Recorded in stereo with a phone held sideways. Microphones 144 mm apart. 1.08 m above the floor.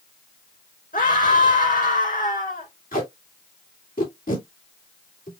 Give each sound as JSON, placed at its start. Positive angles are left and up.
{"t": 0.9, "sound": "a scream", "side_deg": 85, "distance_m": 4.0}
{"t": 2.9, "sound": "tape being pulled", "side_deg": 85, "distance_m": 3.0}